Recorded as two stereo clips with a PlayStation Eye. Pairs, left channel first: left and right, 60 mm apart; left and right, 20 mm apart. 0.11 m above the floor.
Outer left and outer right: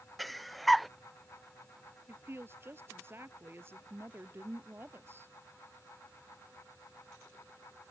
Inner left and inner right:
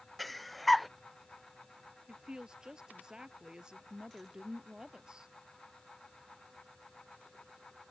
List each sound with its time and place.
0.2 s breathing: centre (ahead or behind)
2.1 s a woman speaking: 40° right (ahead or behind)